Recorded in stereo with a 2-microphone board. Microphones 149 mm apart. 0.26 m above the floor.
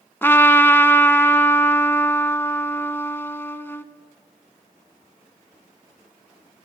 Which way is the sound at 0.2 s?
15° left (ahead or behind).